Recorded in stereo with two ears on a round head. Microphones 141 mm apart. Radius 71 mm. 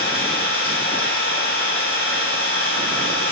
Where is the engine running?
75° left (ahead or behind), 3 m.